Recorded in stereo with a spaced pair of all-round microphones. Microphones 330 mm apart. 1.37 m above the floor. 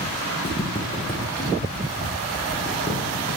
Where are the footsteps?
25° left (ahead or behind), 2.5 m; by 3.0 s centre (ahead or behind), 4 m.